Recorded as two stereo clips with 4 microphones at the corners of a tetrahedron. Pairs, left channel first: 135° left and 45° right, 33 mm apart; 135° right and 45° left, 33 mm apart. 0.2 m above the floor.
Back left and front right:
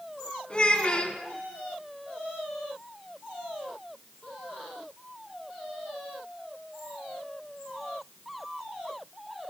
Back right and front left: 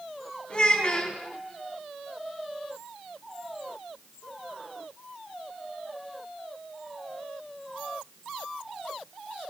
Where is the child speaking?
Straight behind, 1.2 m.